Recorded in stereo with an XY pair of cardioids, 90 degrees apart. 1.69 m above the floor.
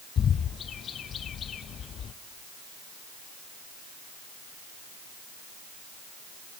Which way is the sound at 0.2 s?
65° left.